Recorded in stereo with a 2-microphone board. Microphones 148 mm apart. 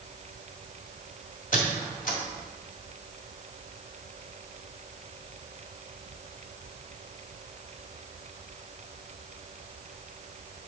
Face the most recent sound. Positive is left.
turn(degrees=65)  # may be behind; listen again after turning